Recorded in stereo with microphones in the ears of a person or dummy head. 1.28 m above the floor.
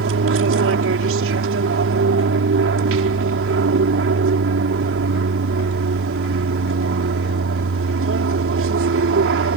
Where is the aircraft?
60° right (ahead or behind).